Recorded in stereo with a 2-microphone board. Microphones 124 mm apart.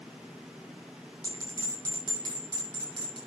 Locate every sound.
1.2 s a bell: 40° right (ahead or behind), 7.5 m